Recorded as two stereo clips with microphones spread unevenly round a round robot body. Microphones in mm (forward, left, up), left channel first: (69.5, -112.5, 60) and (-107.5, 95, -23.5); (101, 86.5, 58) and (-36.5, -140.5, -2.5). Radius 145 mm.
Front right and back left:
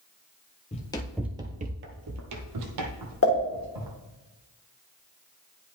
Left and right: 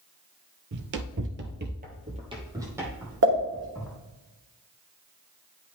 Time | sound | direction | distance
0.7 | running footsteps | 75° right | 0.9 m
3.2 | a pop | 90° right | 1.3 m